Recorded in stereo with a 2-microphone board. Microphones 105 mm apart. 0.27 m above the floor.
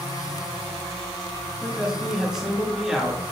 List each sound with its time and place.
1.6 s a man speaking: 5° right (ahead or behind), 4 m